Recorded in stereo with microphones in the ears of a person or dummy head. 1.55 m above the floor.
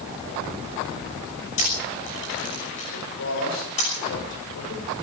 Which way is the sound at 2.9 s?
75° left (ahead or behind).